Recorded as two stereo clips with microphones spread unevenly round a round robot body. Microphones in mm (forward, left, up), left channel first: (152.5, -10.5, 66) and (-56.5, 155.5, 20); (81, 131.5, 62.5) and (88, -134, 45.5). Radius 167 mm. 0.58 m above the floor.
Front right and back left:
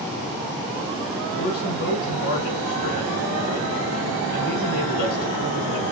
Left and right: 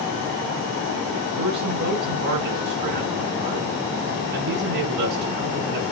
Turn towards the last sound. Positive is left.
turn(degrees=-105)